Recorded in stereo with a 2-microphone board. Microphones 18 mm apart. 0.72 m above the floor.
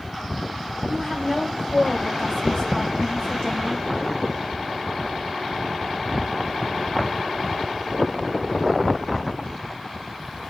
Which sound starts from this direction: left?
A woman speaking, at 0.9 s.